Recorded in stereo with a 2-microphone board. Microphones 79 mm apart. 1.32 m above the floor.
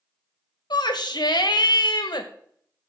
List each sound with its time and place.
0.7 s a shout: 55° left (ahead or behind), 1.5 m